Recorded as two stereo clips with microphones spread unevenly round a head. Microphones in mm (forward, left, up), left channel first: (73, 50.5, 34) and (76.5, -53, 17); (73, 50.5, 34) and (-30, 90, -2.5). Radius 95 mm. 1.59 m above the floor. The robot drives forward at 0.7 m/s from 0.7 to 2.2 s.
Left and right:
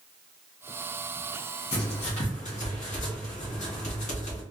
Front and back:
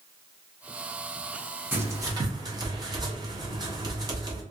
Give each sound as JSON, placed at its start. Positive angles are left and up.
{"t": 1.7, "sound": "writing", "azimuth_deg": 85, "distance_m": 1.2}